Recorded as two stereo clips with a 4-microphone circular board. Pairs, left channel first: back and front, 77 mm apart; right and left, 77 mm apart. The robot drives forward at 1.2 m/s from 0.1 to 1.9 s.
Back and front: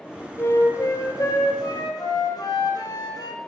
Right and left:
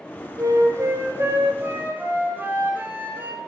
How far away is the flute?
About 1.9 m.